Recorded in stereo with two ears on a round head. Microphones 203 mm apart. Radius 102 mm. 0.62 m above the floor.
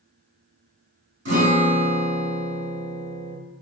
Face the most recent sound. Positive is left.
turn(degrees=-55)  # may be behind; listen again after turning